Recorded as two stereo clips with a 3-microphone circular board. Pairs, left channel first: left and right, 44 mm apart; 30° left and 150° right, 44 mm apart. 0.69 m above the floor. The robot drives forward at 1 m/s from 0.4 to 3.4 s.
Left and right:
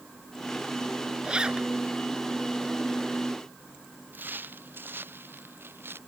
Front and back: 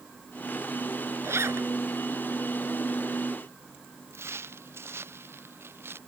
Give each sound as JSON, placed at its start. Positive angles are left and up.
{"t": 1.2, "sound": "a zipper", "azimuth_deg": -155}
{"t": 4.1, "sound": "footsteps", "azimuth_deg": -130}